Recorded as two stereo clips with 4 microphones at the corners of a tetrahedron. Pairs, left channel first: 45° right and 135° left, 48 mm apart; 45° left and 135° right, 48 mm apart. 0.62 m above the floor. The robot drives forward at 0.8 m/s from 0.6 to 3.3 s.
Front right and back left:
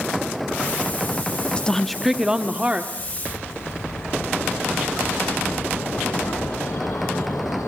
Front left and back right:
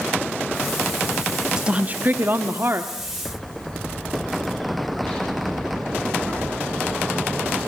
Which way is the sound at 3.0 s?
30° right.